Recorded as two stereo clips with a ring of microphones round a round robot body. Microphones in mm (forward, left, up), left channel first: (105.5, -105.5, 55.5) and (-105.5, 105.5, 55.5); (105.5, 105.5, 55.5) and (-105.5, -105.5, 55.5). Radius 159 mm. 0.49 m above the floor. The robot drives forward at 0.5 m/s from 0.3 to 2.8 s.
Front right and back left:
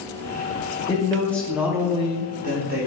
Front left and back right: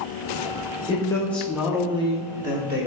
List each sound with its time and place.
0.9 s a man speaking: straight ahead, 0.7 m; by 2.9 s straight behind, 0.9 m